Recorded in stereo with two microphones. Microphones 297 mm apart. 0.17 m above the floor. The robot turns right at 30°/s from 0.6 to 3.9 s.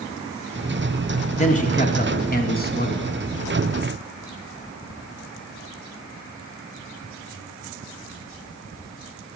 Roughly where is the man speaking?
Ahead left.